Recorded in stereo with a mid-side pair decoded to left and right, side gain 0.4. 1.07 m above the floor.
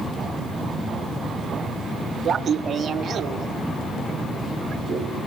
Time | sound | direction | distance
2.2 | laughter | 50° right | 1.4 m